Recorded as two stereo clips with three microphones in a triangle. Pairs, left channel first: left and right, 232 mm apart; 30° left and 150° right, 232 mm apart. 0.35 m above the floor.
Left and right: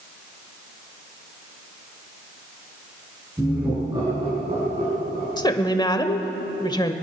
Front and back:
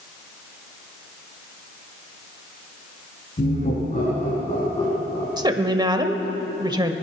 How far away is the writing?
I don't hear writing.